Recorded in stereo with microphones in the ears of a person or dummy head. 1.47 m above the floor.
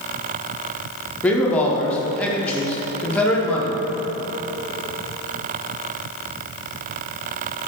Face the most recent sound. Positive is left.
turn(degrees=15)  # may be behind; listen again after turning